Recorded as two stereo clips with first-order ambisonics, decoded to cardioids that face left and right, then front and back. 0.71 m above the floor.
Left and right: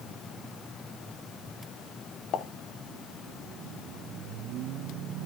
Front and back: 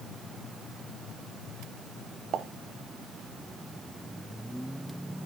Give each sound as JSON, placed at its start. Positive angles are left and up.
{"t": 2.3, "sound": "a pop", "azimuth_deg": 135, "distance_m": 0.8}